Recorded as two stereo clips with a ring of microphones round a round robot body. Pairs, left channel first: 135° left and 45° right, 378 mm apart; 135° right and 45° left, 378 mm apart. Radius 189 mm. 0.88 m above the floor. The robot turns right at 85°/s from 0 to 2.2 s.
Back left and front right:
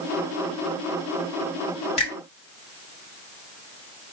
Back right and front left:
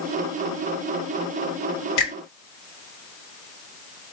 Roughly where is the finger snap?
Behind.